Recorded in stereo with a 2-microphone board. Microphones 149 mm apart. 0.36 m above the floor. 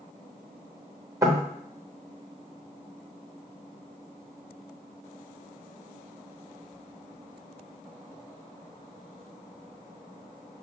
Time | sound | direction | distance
1.2 | knocking | 20° right (ahead or behind) | 0.7 m